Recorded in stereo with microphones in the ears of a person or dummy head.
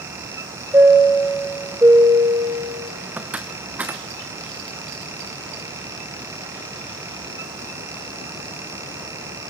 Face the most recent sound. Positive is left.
turn(degrees=-5)  # may be behind; listen again after turning